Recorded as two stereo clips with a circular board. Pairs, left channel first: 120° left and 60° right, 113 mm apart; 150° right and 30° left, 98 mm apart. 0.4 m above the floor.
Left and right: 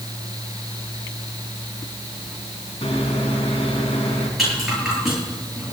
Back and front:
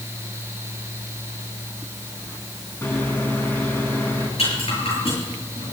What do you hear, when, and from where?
2.8 s a microwave: 145° left, 3.5 m
4.4 s a rattle: 145° right, 9 m